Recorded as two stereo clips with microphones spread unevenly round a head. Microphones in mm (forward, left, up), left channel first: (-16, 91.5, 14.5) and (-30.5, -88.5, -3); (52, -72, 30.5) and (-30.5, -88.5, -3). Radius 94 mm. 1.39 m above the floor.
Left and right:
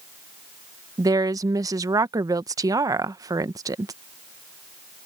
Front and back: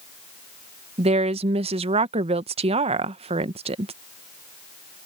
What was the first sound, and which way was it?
A woman speaking, 170° right.